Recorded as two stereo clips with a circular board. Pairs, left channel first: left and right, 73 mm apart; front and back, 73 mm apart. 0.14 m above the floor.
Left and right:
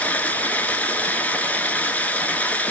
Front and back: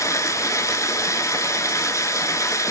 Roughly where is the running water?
Ahead left.